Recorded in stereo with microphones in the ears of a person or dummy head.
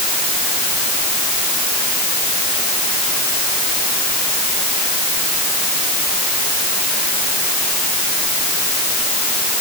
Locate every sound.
Only background noise.